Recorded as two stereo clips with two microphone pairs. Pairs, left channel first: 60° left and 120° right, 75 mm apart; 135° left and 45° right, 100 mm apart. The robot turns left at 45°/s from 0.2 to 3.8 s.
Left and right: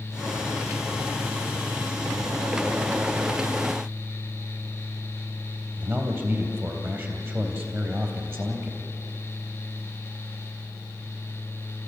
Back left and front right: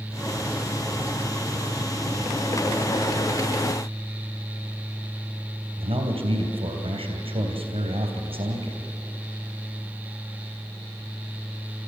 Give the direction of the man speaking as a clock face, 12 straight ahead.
2 o'clock.